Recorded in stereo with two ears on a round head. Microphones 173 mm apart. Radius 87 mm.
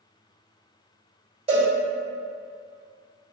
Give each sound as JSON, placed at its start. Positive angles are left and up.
{"t": 1.5, "sound": "a cowbell", "side_deg": -35, "distance_m": 2.0}